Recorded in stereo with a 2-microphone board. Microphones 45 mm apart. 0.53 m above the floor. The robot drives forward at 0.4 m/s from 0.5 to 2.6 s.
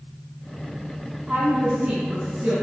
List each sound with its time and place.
1.3 s a woman speaking: 20° right (ahead or behind), 4 m